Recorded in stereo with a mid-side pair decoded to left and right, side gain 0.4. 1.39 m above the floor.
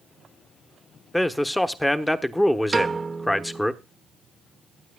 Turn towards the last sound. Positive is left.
turn(degrees=-30)